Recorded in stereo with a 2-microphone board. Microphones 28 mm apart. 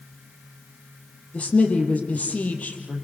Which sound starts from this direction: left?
A woman speaking, at 1.3 s.